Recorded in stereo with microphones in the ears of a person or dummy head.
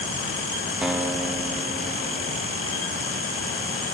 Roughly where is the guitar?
Centre.